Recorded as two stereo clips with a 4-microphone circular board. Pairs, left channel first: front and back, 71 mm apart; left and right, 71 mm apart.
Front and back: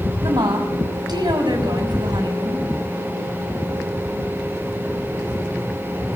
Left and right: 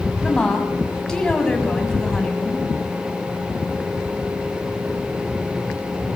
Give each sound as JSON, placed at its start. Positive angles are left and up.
{"t": 0.2, "sound": "a woman speaking", "azimuth_deg": 170, "distance_m": 6.5}